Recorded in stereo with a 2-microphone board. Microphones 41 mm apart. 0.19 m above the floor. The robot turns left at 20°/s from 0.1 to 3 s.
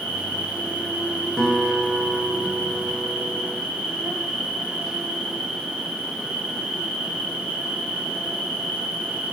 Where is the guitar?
175° left, 2.0 m; by 3.6 s 140° left, 2.0 m.